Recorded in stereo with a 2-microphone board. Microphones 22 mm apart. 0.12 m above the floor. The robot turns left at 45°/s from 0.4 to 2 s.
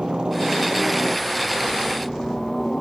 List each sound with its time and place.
0.0 s a helicopter: 125° right; by 2.8 s 160° left